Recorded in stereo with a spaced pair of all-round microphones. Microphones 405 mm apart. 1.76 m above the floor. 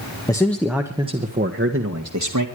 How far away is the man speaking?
About 1.4 m.